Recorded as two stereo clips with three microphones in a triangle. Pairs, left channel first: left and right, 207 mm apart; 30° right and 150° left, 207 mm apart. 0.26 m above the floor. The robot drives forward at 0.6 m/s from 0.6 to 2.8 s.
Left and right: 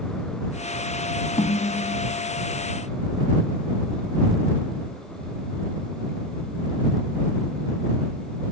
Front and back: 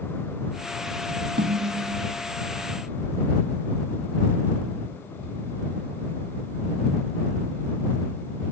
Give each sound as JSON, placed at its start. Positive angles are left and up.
{"t": 1.4, "sound": "a snare drum", "azimuth_deg": 140, "distance_m": 0.5}